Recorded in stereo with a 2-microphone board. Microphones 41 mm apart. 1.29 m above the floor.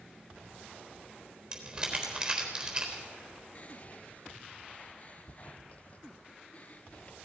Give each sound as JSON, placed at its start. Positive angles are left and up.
{"t": 1.5, "sound": "crumpling", "side_deg": -20, "distance_m": 3.5}
{"t": 3.5, "sound": "whispering", "side_deg": 35, "distance_m": 0.7}